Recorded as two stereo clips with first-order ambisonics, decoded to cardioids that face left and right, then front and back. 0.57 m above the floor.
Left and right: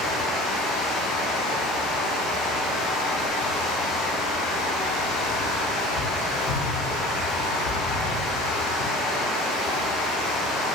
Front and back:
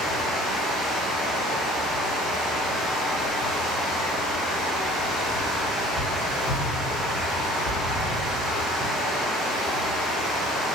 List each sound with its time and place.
0.0 s running water: 60° left, 1.1 m